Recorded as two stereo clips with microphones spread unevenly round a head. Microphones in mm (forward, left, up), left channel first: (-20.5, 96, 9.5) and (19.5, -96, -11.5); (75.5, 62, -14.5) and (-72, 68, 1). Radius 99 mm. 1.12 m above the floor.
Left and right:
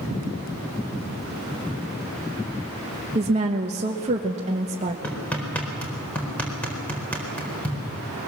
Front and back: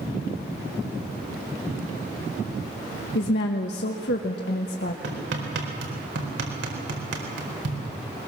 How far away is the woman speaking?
About 1.1 m.